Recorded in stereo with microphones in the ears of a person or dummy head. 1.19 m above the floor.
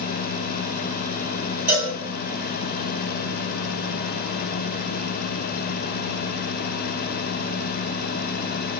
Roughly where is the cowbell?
Centre.